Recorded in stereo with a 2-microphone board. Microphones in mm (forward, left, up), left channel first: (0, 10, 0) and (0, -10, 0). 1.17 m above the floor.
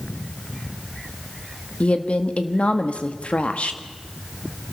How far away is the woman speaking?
About 1.7 m.